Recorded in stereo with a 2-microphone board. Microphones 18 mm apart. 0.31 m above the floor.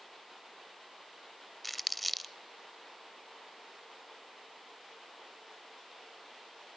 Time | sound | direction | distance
1.6 | crumpling | 5° left (ahead or behind) | 0.6 m